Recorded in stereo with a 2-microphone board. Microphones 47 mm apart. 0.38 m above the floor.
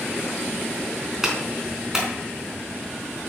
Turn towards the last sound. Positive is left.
turn(degrees=-10)  # may be behind; listen again after turning